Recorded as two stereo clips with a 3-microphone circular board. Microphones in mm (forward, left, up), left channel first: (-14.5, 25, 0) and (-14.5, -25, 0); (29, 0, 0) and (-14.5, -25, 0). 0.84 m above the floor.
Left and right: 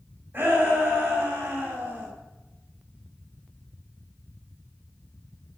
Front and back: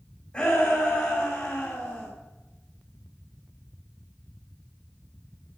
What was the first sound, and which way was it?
A shout, 35° right.